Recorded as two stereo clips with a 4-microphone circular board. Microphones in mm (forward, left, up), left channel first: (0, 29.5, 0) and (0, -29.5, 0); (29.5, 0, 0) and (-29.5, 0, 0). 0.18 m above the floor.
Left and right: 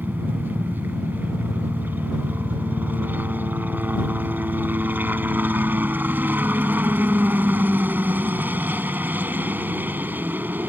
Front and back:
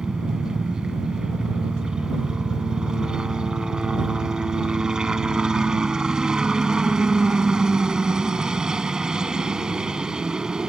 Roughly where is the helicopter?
Right.